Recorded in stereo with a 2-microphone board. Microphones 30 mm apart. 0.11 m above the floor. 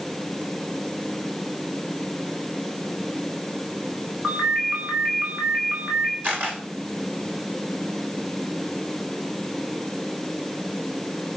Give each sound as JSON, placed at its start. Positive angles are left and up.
{"t": 4.2, "sound": "a ringtone", "side_deg": -60, "distance_m": 5.5}
{"t": 6.2, "sound": "a camera shutter", "side_deg": -50, "distance_m": 6.5}